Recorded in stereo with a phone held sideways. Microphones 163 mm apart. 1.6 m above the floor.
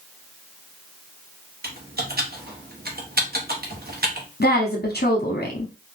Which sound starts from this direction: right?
Typing on a keyboard, at 1.6 s.